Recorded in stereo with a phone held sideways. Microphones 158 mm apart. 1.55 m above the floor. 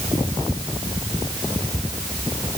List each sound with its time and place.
Only background noise.